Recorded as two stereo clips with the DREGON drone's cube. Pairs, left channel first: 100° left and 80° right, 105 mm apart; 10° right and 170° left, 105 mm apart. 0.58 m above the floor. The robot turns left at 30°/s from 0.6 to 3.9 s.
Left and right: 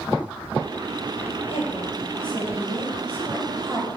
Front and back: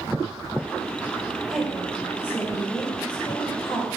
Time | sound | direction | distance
1.5 | a woman speaking | 80° left | 2.5 m